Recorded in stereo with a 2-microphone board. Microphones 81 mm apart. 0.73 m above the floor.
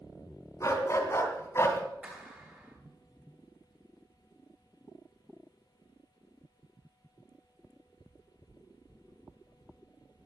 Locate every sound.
0.6 s a dog barking: 40° left (ahead or behind), 3 m; by 1.8 s 35° left (ahead or behind), 2 m
2.0 s a clap: 20° right (ahead or behind), 9.5 m